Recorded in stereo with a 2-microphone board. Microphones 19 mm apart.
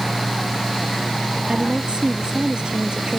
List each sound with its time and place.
1.5 s a woman speaking: 50° right (ahead or behind)